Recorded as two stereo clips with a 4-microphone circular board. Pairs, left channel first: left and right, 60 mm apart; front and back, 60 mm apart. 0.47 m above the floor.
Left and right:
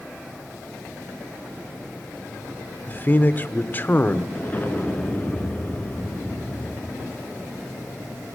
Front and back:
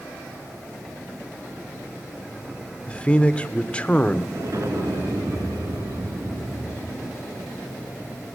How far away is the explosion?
About 3 m.